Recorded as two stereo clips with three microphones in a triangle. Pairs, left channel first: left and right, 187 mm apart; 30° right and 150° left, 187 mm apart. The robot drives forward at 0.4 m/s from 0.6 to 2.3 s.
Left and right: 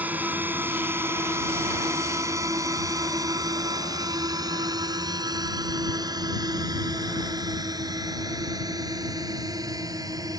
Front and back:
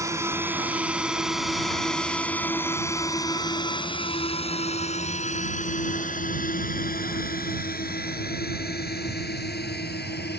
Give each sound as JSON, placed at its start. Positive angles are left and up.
{"t": 0.0, "sound": "a drone", "azimuth_deg": -160}